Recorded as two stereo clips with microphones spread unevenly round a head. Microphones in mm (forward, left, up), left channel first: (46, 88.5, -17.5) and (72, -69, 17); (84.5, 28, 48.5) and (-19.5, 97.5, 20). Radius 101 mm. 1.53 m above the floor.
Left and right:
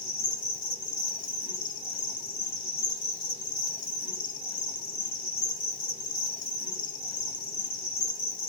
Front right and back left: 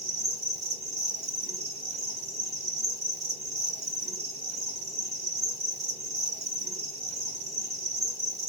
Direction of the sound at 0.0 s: 105° left.